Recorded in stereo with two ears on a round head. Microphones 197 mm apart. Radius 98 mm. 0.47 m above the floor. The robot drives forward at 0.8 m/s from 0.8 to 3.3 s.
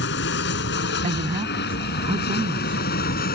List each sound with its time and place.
0.0 s an aircraft: 50° left (ahead or behind); by 3.4 s 40° left (ahead or behind)
1.0 s a man speaking: 30° right (ahead or behind); by 3.3 s 20° right (ahead or behind)